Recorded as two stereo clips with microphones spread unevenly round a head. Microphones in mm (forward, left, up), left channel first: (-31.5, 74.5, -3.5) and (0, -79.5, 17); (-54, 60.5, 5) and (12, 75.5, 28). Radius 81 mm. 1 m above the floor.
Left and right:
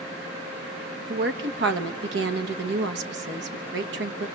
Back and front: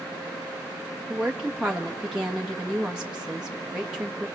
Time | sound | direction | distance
1.1 | a woman speaking | 80° right | 1.5 m